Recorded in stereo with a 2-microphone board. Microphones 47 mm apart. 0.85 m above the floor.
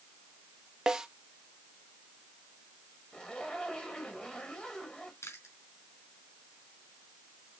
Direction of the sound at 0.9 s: 15° right (ahead or behind).